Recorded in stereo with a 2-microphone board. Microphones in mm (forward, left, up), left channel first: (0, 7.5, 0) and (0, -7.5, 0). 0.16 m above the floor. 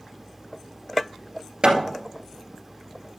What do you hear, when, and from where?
1.6 s hammering: 65° right (ahead or behind), 2.0 m